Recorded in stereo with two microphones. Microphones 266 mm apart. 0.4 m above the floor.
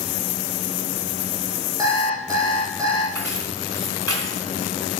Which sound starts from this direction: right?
Keys jangling, at 3.1 s.